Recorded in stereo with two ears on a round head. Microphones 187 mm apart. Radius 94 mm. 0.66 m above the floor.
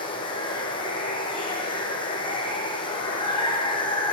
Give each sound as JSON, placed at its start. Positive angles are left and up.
{"t": 0.0, "sound": "running water", "side_deg": 25, "distance_m": 4.5}